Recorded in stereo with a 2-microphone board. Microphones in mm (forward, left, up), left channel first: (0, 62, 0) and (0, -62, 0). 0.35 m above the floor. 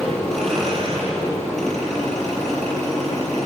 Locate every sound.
0.0 s an engine running: 5° left (ahead or behind), 8 m